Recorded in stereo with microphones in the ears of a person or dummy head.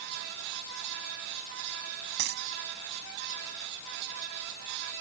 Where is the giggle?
I don't hear a giggle.